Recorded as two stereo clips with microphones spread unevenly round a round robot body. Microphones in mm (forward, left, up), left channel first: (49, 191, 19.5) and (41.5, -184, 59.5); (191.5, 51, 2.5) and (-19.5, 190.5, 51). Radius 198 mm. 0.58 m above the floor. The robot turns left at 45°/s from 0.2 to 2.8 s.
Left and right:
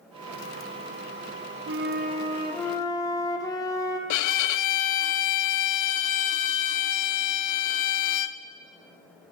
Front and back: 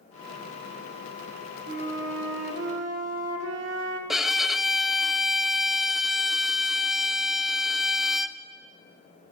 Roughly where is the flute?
Behind right.